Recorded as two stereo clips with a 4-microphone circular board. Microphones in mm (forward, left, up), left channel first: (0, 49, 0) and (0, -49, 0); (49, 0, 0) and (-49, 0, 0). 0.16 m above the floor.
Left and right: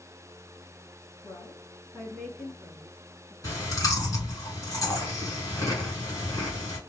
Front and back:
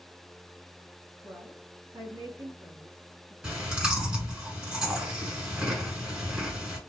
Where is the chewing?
105° left, 1.6 m.